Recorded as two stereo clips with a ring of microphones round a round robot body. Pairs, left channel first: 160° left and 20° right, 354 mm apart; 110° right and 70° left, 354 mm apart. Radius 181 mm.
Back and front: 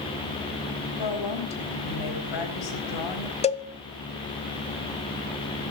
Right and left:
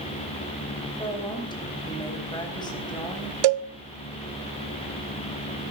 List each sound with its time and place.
1.0 s a woman speaking: 170° left, 4 m
3.4 s a cowbell: 85° left, 0.9 m